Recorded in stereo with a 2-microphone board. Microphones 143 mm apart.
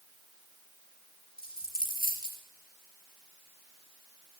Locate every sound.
1.4 s a dropped coin: 80° left, 3.5 m